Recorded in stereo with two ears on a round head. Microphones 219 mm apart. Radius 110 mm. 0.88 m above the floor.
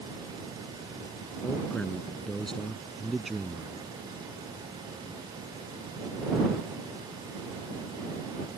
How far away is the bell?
No bell in this recording.